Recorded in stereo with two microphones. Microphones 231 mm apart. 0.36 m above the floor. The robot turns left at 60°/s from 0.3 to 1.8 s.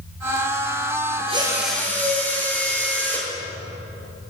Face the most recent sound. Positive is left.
turn(degrees=175)